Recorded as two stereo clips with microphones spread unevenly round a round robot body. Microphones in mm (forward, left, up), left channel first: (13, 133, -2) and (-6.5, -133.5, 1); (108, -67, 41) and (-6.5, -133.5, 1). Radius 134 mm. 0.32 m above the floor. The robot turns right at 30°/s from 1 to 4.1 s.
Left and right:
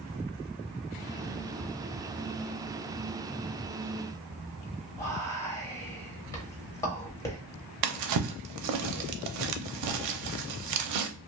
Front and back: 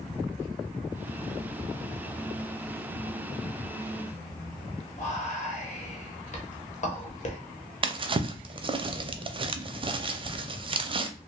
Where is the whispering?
10° left, 1.1 m.